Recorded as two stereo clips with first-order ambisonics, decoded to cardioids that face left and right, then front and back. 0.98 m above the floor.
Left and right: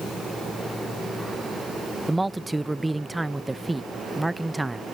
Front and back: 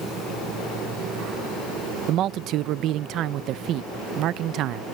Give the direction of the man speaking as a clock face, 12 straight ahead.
6 o'clock.